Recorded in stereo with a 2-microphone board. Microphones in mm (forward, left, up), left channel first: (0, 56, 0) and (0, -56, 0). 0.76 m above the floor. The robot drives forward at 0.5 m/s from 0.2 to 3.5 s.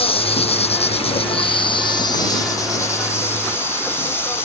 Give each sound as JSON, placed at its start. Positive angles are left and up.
{"t": 0.0, "sound": "an insect", "side_deg": 55}